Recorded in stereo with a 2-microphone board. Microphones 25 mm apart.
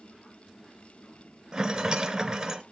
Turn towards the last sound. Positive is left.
turn(degrees=-20)  # may be behind; listen again after turning